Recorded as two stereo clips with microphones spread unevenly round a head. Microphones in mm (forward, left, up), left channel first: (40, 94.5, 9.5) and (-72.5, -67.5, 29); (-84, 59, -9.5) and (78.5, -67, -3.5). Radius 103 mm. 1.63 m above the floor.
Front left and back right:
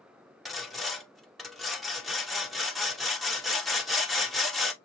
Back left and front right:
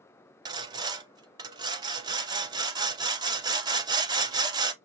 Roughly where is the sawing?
Ahead right.